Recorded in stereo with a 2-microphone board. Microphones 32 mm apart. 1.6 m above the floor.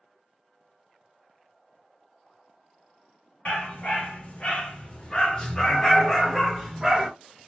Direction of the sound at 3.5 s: 45° left (ahead or behind).